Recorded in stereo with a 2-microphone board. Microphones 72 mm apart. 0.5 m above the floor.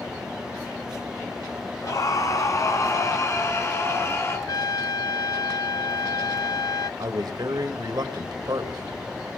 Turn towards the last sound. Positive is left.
turn(degrees=-65)  # may be behind; listen again after turning